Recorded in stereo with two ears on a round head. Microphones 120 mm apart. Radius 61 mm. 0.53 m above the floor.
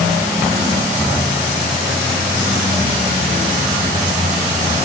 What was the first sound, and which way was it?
Only background noise.